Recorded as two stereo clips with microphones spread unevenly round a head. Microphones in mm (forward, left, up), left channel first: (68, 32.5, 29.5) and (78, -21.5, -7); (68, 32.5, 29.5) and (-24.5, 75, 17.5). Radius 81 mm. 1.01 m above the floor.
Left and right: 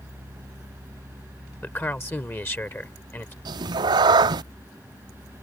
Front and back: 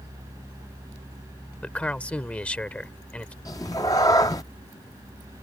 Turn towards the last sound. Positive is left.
turn(degrees=-85)